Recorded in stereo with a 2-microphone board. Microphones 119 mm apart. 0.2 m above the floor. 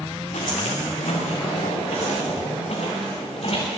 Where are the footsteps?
85° left, 6.5 m; by 3.7 s 55° left (ahead or behind), 5.5 m.